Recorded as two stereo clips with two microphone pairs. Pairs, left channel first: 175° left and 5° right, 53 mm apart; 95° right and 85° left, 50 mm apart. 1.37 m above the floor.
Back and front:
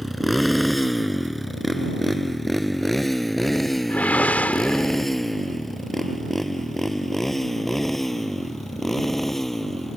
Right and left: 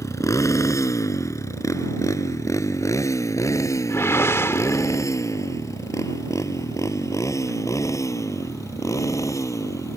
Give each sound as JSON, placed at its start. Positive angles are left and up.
{"t": 0.0, "sound": "a motorcycle", "azimuth_deg": -95}
{"t": 3.9, "sound": "a whoosh", "azimuth_deg": -125}